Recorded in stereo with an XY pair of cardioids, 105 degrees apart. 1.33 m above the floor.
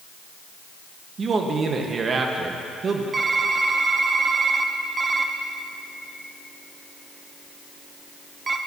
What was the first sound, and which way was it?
A man speaking, 45° right.